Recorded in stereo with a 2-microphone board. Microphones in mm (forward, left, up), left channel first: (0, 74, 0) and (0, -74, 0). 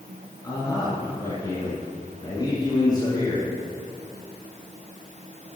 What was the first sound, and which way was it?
A man speaking, 30° left (ahead or behind).